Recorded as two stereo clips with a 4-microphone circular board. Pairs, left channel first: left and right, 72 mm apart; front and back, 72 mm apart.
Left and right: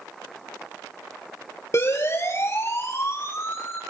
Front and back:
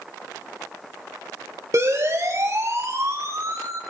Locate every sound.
1.7 s a siren: 135° left, 6 m; by 3.8 s 140° left, 8 m